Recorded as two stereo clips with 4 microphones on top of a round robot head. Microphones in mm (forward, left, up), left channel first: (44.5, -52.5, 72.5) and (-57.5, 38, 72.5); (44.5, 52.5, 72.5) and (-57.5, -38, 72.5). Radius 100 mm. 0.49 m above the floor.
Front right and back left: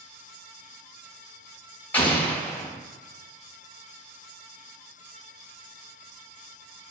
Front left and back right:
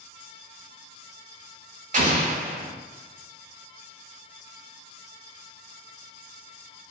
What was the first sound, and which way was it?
An explosion, 120° right.